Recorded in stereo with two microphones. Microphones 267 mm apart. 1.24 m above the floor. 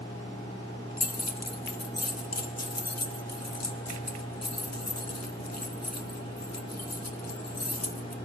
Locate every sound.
1.0 s keys jangling: 70° left (ahead or behind), 0.6 m